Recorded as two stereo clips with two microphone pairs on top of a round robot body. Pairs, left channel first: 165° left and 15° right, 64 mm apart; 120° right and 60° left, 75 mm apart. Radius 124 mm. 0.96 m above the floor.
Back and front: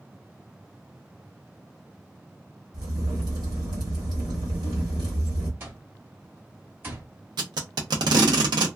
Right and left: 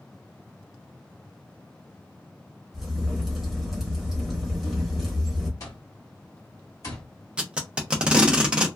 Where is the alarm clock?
70° right, 0.9 m.